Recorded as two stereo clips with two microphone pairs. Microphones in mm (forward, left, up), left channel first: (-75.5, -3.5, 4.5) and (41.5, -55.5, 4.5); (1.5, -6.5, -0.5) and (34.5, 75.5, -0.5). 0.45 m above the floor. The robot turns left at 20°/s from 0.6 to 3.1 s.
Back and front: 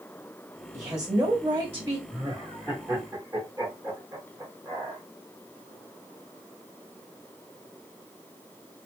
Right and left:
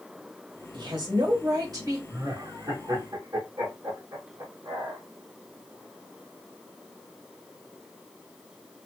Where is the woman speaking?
60° left, 1.7 m; by 2.0 s 35° left, 1.7 m.